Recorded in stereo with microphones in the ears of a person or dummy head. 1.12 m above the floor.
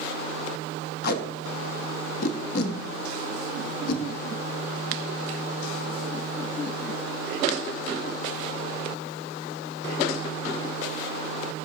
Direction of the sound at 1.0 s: 55° left (ahead or behind).